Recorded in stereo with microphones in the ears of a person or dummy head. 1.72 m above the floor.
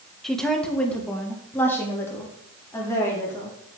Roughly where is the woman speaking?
Centre.